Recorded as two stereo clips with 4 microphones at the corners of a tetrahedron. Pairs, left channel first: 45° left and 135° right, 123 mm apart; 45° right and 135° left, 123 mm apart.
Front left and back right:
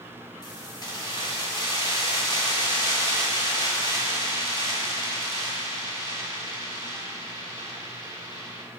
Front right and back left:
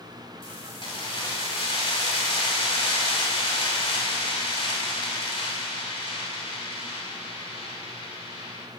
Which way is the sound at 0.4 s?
5° right.